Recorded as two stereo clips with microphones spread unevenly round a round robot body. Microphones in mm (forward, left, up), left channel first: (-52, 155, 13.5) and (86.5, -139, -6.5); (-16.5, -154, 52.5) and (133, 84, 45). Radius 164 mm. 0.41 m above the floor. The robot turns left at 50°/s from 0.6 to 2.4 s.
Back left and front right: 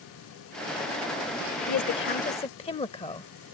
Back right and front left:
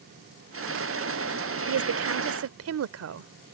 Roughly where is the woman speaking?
Left.